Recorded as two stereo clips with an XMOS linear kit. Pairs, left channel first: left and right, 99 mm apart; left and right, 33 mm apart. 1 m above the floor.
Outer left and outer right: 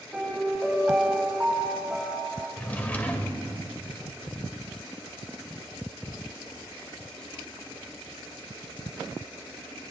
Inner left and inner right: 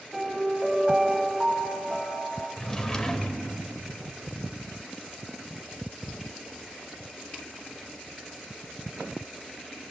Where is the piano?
15° right (ahead or behind), 4.5 m.